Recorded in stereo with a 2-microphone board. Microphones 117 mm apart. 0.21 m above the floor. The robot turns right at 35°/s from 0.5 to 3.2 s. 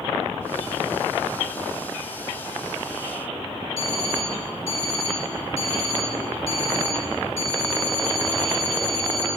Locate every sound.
3.8 s an alarm clock: 60° left (ahead or behind), 3 m